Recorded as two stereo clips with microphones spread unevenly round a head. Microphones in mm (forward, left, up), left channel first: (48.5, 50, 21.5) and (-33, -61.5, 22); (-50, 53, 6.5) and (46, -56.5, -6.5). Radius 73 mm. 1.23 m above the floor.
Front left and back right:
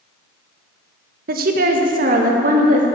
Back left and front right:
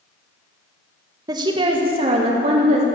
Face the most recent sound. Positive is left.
turn(degrees=-95)